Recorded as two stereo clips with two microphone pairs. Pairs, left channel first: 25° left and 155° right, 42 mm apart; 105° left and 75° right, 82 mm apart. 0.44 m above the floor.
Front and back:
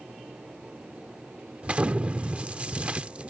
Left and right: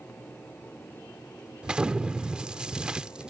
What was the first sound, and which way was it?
An explosion, 140° right.